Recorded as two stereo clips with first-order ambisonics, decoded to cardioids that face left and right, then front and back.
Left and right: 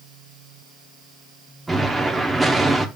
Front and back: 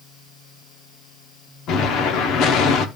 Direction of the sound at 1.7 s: 10° right.